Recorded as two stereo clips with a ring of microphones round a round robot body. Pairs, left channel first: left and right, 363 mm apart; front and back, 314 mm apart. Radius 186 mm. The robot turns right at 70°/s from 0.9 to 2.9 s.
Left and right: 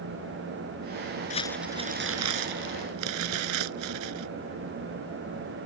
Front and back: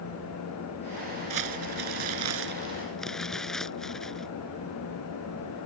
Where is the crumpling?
160° left; by 4.3 s 90° right.